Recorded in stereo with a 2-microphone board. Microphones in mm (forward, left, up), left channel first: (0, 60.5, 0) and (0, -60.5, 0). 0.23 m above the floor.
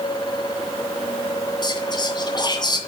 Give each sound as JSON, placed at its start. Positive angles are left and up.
{"t": 1.6, "sound": "whispering", "side_deg": 35, "distance_m": 2.0}